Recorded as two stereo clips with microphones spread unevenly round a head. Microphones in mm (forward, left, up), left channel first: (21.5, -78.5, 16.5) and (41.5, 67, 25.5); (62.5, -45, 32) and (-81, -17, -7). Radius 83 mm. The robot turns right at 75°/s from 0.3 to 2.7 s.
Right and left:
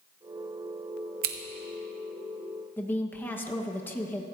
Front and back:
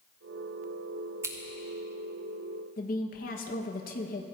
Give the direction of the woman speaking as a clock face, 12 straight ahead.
1 o'clock.